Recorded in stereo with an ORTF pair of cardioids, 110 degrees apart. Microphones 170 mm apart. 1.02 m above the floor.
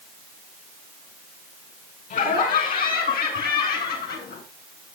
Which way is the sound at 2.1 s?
55° left.